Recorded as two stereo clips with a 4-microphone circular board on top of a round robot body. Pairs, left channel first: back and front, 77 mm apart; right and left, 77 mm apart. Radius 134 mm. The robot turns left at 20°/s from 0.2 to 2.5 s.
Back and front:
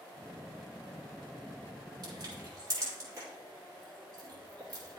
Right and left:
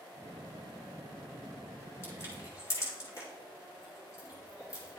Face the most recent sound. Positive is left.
turn(degrees=-45)